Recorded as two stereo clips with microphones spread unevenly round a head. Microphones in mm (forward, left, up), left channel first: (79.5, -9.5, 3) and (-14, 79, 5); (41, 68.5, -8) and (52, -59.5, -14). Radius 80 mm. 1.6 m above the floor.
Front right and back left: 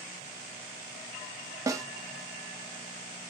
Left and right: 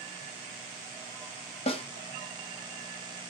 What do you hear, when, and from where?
1.7 s a snare drum: 80° left, 0.8 m